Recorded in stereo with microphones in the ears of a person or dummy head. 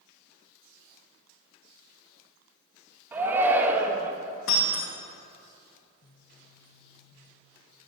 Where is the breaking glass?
65° left (ahead or behind), 3.5 m.